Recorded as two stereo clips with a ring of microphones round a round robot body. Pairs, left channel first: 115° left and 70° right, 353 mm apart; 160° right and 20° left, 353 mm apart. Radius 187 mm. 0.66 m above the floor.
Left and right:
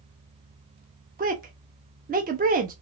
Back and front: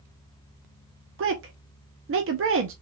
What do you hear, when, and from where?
1.2 s a woman speaking: 10° right, 0.6 m